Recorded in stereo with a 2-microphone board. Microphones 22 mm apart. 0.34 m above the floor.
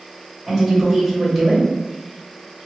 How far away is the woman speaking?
About 1.5 m.